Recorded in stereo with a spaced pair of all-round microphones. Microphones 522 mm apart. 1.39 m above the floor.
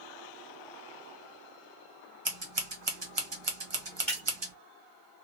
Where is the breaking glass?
Centre (ahead or behind), 2 m.